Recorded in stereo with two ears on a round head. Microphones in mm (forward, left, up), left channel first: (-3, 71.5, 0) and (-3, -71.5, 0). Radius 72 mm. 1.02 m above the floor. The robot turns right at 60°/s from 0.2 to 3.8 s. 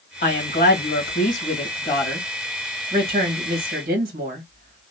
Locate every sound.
0.2 s a woman speaking: 50° left, 1.6 m; by 4.8 s 95° right, 1.6 m